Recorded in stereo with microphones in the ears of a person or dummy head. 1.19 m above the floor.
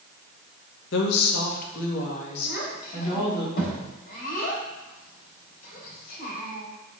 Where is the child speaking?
50° left (ahead or behind), 3 m.